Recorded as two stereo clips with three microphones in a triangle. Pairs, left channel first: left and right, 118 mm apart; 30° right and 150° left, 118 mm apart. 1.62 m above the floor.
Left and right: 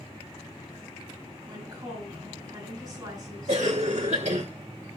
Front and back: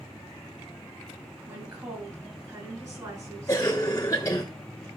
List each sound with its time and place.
1.5 s a woman speaking: 150° right, 5 m
3.5 s a cough: 95° right, 1.3 m